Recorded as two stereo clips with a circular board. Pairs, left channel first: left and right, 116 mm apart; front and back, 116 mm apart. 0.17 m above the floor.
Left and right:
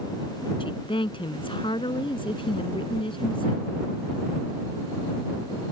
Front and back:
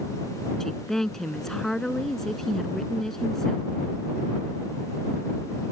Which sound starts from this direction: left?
A woman speaking, at 0.6 s.